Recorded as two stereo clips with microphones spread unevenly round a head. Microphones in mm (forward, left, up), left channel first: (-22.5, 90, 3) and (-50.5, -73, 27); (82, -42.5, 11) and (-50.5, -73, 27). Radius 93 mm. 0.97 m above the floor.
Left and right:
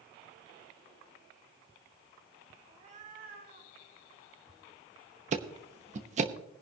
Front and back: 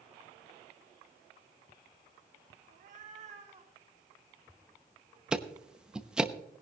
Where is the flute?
No flute in this recording.